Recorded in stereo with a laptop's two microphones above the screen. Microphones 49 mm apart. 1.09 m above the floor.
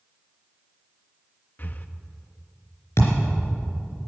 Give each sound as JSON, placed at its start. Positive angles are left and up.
{"t": 1.6, "sound": "breathing", "side_deg": 40, "distance_m": 0.5}
{"t": 3.0, "sound": "a thud", "side_deg": 65, "distance_m": 3.5}